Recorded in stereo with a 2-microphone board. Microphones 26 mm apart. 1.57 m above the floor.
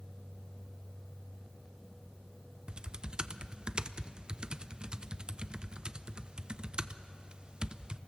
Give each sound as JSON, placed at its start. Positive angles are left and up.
{"t": 2.7, "sound": "typing on a keyboard", "side_deg": -35, "distance_m": 0.6}